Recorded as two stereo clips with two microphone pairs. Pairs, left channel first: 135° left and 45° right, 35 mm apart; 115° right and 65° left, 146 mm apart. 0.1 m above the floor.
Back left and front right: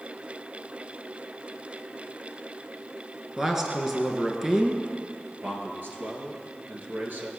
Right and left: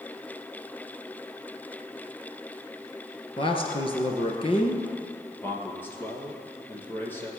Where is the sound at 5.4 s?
45° right, 3 m.